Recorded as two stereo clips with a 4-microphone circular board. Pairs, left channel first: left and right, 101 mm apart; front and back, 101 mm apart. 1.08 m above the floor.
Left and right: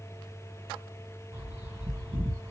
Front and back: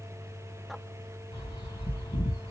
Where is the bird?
25° right, 1.7 m.